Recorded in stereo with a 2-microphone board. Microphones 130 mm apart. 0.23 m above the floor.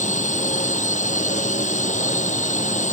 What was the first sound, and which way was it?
A drone, 70° left (ahead or behind).